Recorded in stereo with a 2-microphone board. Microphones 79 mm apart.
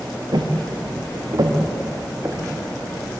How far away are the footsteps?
About 3 m.